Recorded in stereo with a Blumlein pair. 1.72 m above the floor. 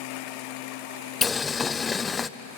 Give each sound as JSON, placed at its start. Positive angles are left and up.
{"t": 1.2, "sound": "boiling", "azimuth_deg": 20, "distance_m": 0.6}